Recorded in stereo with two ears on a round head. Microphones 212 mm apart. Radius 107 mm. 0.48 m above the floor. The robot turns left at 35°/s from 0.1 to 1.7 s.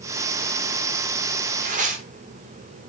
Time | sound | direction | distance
1.6 | tearing paper | 30° right (ahead or behind) | 0.9 m